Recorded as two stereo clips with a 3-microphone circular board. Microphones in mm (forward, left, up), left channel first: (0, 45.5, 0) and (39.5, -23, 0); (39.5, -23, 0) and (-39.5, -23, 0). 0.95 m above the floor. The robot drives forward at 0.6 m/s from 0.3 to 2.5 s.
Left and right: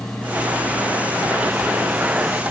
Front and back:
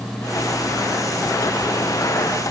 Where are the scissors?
No scissors in this recording.